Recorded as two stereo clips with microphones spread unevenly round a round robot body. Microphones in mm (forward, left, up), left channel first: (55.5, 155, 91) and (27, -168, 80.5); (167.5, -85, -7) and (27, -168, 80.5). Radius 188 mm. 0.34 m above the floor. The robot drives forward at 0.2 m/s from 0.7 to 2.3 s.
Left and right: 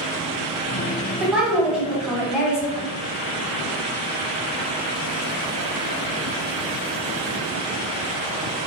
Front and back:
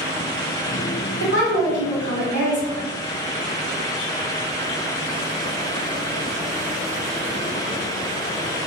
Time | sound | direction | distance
1.2 | a woman speaking | straight behind | 1.4 m